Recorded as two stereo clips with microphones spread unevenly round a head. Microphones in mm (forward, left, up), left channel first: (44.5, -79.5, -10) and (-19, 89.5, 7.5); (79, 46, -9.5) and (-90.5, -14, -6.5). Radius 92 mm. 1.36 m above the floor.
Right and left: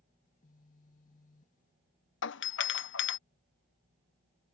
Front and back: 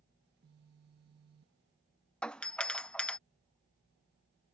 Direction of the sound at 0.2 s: 125° right.